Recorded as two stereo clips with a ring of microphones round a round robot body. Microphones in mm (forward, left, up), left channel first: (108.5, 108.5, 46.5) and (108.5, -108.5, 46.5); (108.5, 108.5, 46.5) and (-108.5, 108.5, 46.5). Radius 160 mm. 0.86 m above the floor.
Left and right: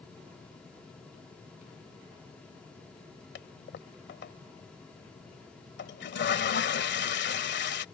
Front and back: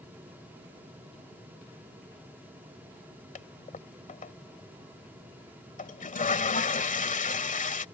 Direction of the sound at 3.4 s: 55° left.